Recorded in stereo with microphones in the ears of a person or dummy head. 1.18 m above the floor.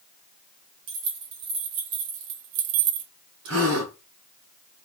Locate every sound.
0.9 s keys jangling: 85° right, 2 m; by 3.1 s 55° right (ahead or behind), 0.5 m
3.5 s a gasp: 75° right (ahead or behind), 2.5 m